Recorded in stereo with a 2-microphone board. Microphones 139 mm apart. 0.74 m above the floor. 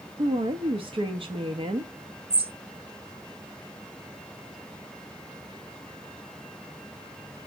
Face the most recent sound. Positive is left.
turn(degrees=-45)  # may be behind; listen again after turning